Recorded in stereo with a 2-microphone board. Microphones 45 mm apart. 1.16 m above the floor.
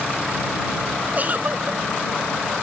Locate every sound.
1.1 s a giggle: 40° right (ahead or behind)